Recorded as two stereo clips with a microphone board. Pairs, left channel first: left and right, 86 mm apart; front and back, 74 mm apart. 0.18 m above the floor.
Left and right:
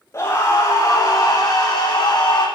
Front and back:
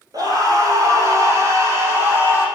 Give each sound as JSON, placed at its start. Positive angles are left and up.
{"t": 0.1, "sound": "a scream", "azimuth_deg": 145, "distance_m": 6.0}